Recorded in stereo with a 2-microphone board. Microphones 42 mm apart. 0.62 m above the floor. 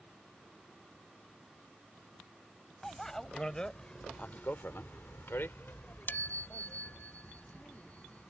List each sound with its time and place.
2.8 s a bicycle bell: 10° left (ahead or behind); by 8.3 s 35° left (ahead or behind)